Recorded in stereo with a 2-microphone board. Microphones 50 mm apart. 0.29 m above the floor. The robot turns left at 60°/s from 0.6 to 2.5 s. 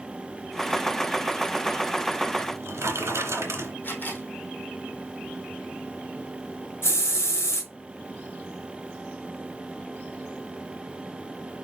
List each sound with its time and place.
2.4 s a drawer: 65° right (ahead or behind), 2.0 m; by 3.7 s 60° right (ahead or behind), 2.0 m
3.8 s a camera shutter: 40° left (ahead or behind), 2.5 m
6.8 s a hiss: 55° left (ahead or behind), 3.5 m